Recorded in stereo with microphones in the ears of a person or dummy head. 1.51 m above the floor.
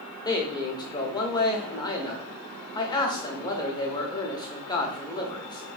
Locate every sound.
0.2 s a man speaking: 20° left (ahead or behind), 0.7 m